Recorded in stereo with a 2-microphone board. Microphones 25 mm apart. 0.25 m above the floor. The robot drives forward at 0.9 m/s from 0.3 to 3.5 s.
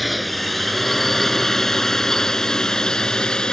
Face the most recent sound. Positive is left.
turn(degrees=40)  # may be behind; listen again after turning